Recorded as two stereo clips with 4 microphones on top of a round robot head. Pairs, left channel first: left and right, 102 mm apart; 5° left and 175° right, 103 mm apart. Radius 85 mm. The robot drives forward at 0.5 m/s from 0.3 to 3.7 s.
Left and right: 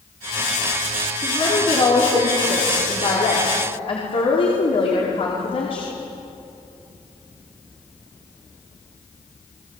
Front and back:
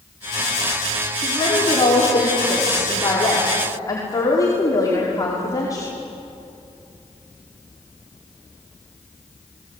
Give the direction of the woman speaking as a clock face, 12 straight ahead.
10 o'clock.